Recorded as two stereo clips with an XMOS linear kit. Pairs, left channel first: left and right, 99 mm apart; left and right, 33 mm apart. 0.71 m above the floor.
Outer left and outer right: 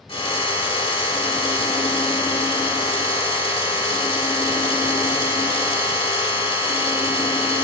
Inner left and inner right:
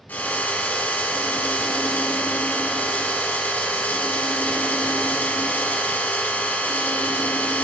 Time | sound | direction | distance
0.1 | a drill | 70° left (ahead or behind) | 1.7 m